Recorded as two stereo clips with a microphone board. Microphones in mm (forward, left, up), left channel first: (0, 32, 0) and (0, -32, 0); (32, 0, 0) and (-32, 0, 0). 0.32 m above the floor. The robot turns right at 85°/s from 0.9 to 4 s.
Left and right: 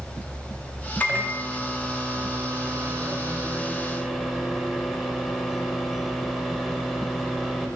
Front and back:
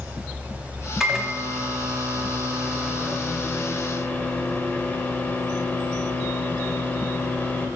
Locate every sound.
1.0 s a microwave: 100° left, 0.7 m; by 7.7 s 5° right, 0.7 m